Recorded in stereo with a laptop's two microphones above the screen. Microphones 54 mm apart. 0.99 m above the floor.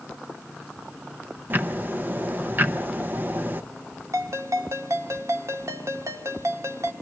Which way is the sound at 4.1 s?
70° right (ahead or behind).